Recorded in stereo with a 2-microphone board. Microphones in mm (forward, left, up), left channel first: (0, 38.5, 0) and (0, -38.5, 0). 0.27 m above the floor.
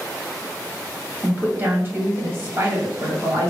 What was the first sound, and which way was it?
A woman speaking, 25° right (ahead or behind).